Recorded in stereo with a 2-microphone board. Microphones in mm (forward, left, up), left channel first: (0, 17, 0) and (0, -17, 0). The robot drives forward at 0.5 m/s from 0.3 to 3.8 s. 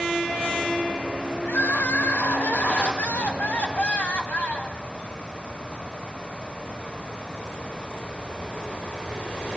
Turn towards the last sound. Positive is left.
turn(degrees=45)  # may be behind; listen again after turning